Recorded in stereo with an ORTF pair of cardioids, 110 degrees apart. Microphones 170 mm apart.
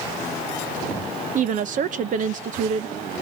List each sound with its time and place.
1.4 s a woman speaking: 50° right, 0.8 m